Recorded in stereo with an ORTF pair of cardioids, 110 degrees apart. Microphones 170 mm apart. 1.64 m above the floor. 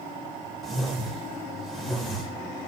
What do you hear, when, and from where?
0.6 s a whoosh: straight ahead, 1.7 m